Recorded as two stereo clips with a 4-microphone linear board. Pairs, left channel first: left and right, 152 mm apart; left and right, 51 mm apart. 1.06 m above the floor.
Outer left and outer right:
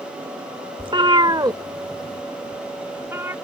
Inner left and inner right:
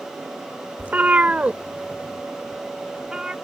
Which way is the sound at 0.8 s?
35° right (ahead or behind).